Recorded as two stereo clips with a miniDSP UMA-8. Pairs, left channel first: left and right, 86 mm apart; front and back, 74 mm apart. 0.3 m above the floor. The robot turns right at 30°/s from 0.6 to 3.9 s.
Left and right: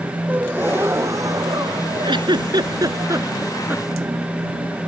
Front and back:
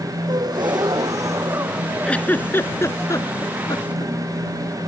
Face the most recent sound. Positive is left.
turn(degrees=-20)